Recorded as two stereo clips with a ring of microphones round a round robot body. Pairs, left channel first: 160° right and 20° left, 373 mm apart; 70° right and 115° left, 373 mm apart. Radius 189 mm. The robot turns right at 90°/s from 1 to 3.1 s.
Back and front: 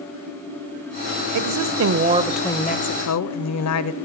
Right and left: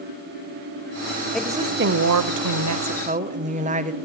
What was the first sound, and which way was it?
A woman speaking, 20° left.